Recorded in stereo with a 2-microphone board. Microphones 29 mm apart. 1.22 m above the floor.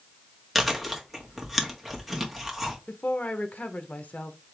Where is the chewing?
5° left (ahead or behind), 1.6 m.